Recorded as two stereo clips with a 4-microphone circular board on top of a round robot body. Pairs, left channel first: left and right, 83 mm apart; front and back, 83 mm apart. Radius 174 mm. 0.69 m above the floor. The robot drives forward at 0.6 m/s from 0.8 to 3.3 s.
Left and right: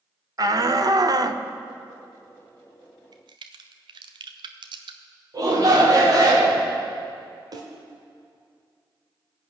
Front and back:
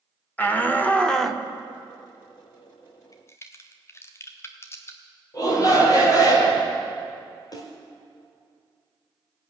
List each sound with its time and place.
0.4 s a shout: 65° right, 1.1 m; by 1.4 s 95° right, 1.0 m
3.1 s a crack: 50° right, 0.5 m; by 5.0 s 60° right, 0.5 m
5.3 s a shout: 45° right, 3 m
7.5 s a snare drum: 45° right, 0.9 m